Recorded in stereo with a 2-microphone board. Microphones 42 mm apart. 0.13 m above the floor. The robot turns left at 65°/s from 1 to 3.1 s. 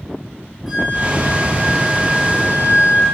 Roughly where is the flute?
Ahead.